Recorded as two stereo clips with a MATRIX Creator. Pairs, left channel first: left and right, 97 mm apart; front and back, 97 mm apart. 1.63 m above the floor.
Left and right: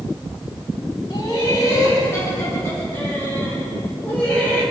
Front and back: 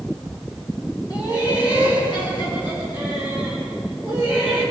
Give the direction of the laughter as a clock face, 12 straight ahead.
10 o'clock.